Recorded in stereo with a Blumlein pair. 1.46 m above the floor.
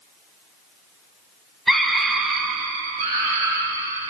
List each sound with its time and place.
1.7 s a scream: 5° right, 0.9 m; by 4.1 s 60° right, 1.6 m